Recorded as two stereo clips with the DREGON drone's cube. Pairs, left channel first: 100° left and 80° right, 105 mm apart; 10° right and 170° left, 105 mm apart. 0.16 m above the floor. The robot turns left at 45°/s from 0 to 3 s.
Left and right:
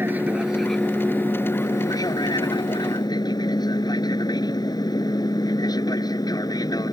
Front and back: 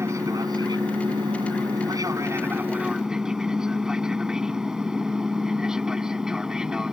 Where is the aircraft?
140° right; by 6.9 s 85° left.